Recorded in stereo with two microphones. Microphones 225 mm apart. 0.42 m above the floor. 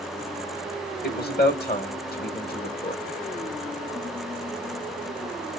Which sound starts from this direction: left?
A man speaking, at 1.0 s.